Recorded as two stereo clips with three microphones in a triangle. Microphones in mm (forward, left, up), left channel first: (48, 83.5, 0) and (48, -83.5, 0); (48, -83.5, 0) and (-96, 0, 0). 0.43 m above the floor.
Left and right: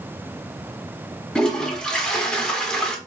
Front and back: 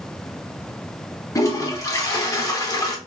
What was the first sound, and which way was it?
A toilet flushing, 10° left.